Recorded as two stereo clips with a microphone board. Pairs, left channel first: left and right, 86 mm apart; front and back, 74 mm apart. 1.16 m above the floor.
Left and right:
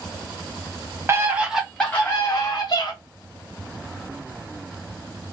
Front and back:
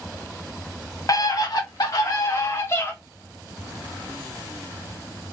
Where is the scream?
35° right, 0.6 m; by 2.9 s 50° left, 0.9 m.